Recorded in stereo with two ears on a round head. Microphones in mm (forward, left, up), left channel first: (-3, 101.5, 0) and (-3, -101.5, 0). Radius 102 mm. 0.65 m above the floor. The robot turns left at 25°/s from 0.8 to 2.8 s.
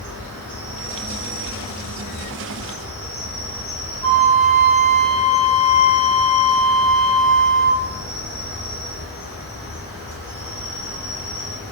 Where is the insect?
100° right, 1.5 m; by 11.7 s 150° right, 1.5 m.